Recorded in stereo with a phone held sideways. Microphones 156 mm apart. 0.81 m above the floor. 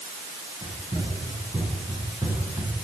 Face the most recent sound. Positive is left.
turn(degrees=-20)  # may be behind; listen again after turning